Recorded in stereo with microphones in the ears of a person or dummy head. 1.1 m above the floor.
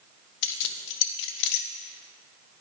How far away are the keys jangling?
About 0.7 m.